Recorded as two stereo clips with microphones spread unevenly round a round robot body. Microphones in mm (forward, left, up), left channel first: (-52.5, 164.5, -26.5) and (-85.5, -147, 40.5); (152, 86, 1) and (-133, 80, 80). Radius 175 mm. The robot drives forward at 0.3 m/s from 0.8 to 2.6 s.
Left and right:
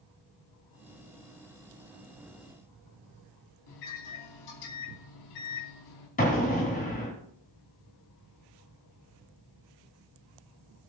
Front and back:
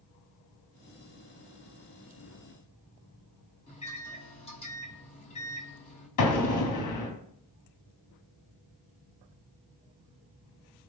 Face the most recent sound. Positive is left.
turn(degrees=15)